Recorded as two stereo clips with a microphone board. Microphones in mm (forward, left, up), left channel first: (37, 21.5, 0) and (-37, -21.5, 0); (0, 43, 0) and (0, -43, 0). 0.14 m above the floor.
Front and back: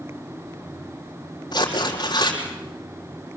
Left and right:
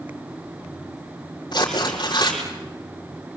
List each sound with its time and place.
1.5 s tearing paper: 60° left, 4 m